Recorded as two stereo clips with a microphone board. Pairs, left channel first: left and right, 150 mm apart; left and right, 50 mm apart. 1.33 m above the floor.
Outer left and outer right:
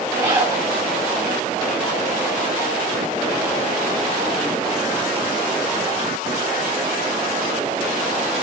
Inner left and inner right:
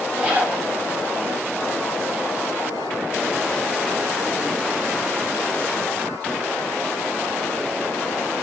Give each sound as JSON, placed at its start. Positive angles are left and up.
{"t": 0.1, "sound": "a zipper", "side_deg": -15, "distance_m": 6.0}